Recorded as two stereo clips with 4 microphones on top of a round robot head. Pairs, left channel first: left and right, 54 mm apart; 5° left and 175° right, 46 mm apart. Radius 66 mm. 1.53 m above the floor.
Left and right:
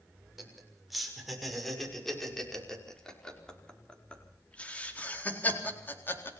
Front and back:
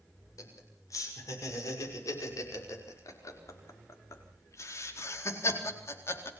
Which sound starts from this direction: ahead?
Laughter, at 0.4 s.